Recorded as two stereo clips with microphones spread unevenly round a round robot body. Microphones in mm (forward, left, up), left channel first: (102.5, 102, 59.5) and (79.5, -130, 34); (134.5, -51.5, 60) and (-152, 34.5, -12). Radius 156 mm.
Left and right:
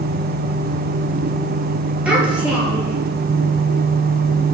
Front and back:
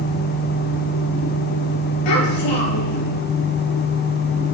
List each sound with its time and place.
2.0 s a child speaking: 10° right, 9 m